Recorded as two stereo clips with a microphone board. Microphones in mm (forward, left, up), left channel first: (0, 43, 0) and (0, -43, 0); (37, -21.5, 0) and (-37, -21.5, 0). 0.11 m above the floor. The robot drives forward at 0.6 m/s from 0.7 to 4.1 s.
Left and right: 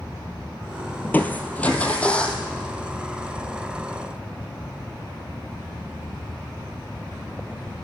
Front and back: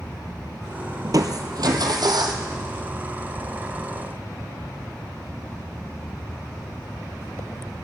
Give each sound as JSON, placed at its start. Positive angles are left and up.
{"t": 1.0, "sound": "crushing", "azimuth_deg": 155, "distance_m": 0.8}